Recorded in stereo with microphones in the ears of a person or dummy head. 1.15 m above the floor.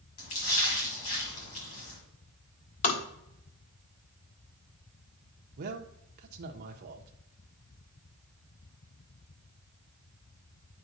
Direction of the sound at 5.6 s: 50° right (ahead or behind).